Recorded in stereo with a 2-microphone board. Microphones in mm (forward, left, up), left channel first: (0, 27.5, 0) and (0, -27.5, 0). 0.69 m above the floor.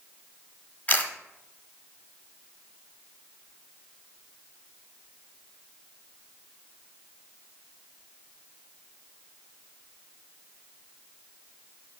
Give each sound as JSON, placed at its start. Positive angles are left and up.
{"t": 0.9, "sound": "a camera shutter", "side_deg": 35, "distance_m": 1.3}